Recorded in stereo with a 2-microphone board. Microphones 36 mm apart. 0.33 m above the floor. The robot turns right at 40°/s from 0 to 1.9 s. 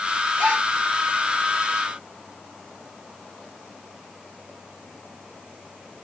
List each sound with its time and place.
0.4 s a gasp: 40° right (ahead or behind), 6.5 m; by 0.7 s 50° right (ahead or behind), 6.5 m